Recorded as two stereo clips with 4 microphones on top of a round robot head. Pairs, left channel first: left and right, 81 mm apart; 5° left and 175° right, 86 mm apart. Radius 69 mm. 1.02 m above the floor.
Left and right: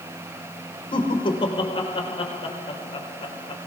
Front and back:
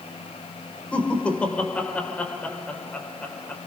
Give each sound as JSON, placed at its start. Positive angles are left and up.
{"t": 0.9, "sound": "laughter", "azimuth_deg": 80, "distance_m": 5.0}